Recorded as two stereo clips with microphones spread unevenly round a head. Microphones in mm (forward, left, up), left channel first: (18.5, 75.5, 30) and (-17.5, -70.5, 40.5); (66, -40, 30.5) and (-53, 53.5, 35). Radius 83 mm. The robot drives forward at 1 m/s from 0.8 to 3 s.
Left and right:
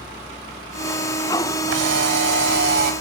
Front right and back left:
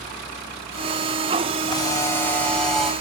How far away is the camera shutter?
About 2 m.